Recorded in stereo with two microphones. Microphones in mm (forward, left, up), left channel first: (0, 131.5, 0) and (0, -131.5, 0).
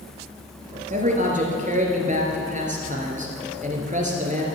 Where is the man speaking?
30° right (ahead or behind), 1.9 m.